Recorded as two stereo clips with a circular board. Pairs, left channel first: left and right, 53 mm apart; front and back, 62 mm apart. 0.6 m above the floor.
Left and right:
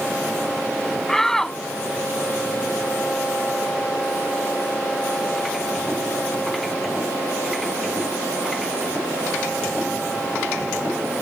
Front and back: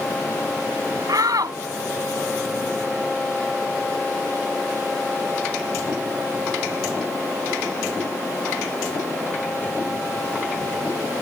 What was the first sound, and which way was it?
A shout, 170° left.